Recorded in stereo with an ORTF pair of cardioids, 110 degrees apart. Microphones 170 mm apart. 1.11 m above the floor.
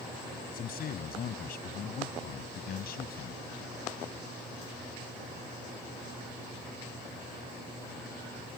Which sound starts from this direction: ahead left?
A man speaking, at 0.5 s.